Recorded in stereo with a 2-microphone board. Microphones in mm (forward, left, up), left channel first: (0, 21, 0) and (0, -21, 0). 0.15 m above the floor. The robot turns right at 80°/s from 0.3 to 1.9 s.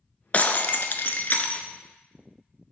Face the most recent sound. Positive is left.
turn(degrees=165)